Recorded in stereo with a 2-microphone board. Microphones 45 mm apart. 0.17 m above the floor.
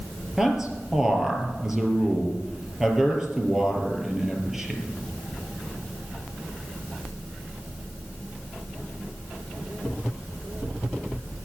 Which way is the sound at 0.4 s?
10° right (ahead or behind).